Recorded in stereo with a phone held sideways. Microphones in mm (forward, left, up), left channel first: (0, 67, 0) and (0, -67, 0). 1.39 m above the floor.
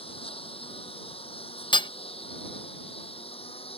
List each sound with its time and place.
0.0 s a lawn mower: 45° left (ahead or behind)
1.7 s hammering: 35° left (ahead or behind)